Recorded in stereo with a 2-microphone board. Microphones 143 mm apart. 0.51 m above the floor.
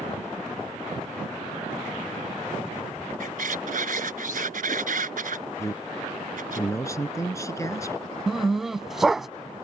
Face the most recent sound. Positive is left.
turn(degrees=0)  # may be behind; listen again after turning